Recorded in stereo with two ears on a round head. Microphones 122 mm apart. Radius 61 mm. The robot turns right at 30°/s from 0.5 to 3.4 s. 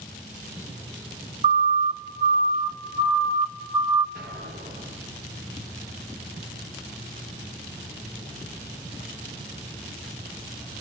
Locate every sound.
1.4 s a siren: 40° right (ahead or behind), 2.5 m; by 4.0 s 25° right (ahead or behind), 1.9 m
4.2 s an explosion: 65° right (ahead or behind), 4 m